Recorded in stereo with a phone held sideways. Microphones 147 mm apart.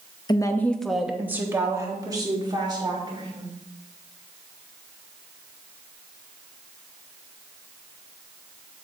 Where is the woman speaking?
30° left (ahead or behind), 0.7 m; by 3.5 s 35° right (ahead or behind), 2.5 m.